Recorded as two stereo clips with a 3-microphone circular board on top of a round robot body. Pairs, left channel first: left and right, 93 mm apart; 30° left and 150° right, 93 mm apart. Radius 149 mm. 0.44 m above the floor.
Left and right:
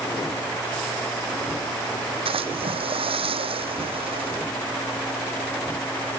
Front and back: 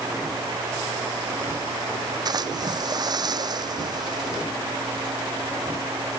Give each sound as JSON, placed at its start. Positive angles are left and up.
{"t": 2.2, "sound": "a splash", "azimuth_deg": -105}